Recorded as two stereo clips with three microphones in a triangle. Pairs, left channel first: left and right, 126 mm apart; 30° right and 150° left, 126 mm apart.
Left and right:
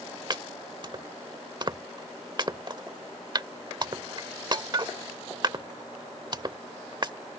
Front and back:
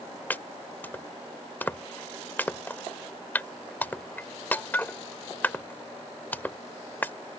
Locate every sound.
0.3 s chopping: 95° right